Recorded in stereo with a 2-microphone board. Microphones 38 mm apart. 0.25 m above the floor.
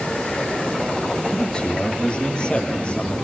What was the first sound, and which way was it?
A man speaking, 20° left (ahead or behind).